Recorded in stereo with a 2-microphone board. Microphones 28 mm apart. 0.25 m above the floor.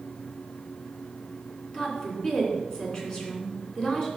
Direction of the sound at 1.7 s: 30° left (ahead or behind).